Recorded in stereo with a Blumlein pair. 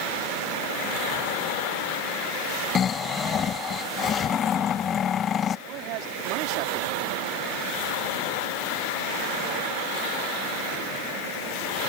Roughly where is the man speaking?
Ahead right.